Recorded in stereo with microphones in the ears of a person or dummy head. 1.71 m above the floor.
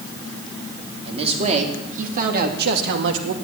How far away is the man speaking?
About 3.5 m.